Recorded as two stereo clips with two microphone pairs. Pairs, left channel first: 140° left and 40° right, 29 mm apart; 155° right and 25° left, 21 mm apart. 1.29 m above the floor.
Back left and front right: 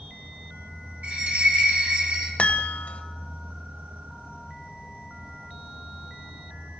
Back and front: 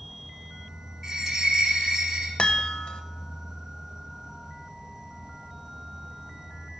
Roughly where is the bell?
Ahead right.